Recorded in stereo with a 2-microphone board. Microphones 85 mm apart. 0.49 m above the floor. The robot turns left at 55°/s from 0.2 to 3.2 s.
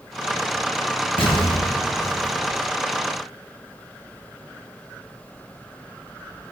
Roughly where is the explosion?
Left.